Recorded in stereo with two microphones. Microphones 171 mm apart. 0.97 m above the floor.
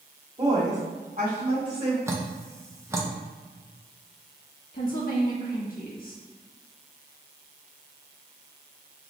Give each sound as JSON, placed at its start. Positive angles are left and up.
{"t": 0.4, "sound": "a woman speaking", "side_deg": -40, "distance_m": 1.7}
{"t": 2.1, "sound": "dripping", "side_deg": -15, "distance_m": 0.5}
{"t": 4.7, "sound": "a woman speaking", "side_deg": 60, "distance_m": 1.2}